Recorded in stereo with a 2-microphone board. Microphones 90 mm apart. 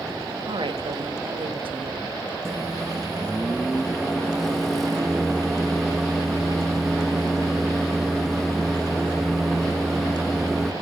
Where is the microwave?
5° left (ahead or behind), 1.0 m.